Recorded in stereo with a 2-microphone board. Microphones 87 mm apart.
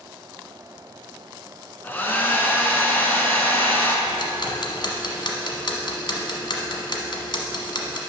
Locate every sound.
1.8 s a hair dryer: 25° left (ahead or behind), 1.1 m
4.1 s ticking: 65° left (ahead or behind), 1.1 m